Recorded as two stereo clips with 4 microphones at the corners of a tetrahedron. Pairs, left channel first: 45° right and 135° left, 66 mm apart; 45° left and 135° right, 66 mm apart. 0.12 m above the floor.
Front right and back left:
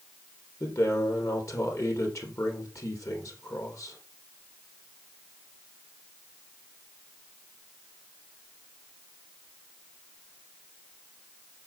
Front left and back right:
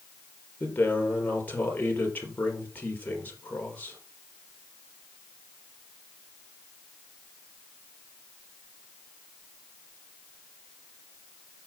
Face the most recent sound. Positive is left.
turn(degrees=-15)